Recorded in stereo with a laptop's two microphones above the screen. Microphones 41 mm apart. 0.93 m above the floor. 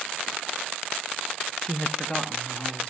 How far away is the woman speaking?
About 0.6 m.